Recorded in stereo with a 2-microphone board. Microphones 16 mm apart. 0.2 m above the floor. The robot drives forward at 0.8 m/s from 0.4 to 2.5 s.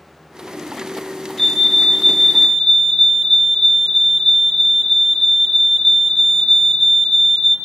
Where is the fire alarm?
20° left (ahead or behind), 3 m.